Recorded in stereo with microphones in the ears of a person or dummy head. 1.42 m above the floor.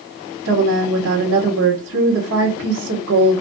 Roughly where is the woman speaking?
Right.